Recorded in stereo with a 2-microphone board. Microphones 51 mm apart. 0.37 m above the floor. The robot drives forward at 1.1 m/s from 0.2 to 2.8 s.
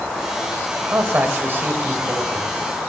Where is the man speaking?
45° right (ahead or behind), 1.7 m; by 2.5 s 35° right (ahead or behind), 2 m.